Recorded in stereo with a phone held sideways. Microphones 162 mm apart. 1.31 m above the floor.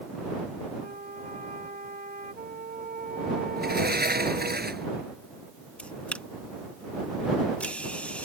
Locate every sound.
0.8 s a flute: 60° right (ahead or behind)
3.6 s a sliding door: 85° right
5.8 s a camera shutter: 10° left (ahead or behind)